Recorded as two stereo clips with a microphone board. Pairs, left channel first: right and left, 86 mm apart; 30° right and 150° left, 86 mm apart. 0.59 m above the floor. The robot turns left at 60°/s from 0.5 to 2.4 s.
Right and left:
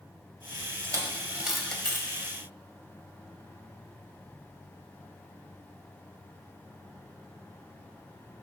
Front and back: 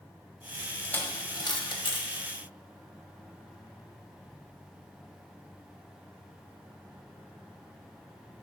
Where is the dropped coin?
45° left, 1.1 m; by 2.3 s 40° right, 1.1 m.